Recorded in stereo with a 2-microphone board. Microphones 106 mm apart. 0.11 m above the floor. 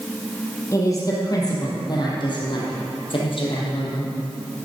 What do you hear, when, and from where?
0.7 s a woman speaking: 30° left (ahead or behind), 3.5 m; by 4.1 s 60° left (ahead or behind), 3.5 m